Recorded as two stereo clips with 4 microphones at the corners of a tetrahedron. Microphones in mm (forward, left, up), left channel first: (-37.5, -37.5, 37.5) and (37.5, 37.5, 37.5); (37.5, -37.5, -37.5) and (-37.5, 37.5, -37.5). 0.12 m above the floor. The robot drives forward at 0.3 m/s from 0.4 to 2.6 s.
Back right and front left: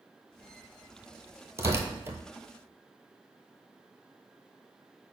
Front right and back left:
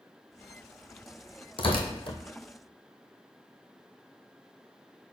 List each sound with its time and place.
1.6 s tearing paper: 15° right, 0.8 m; by 2.2 s 20° right, 0.7 m